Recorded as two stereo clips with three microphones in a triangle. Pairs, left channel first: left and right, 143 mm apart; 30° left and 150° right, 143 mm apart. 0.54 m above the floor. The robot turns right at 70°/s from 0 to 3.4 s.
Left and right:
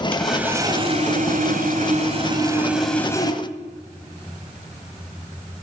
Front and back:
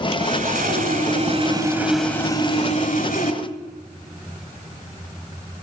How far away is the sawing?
About 1.6 m.